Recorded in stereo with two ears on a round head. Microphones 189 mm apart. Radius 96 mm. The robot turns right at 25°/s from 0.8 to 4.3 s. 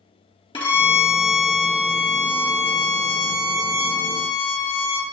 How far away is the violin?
About 1.9 m.